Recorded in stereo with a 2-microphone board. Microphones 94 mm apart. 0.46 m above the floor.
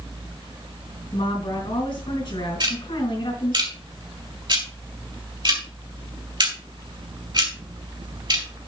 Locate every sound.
1.1 s a woman speaking: 65° left (ahead or behind), 4 m
2.6 s ticking: 55° right (ahead or behind), 3 m